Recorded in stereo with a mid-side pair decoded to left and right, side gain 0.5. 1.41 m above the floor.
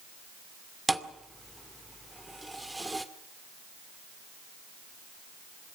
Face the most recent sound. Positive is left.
turn(degrees=-10)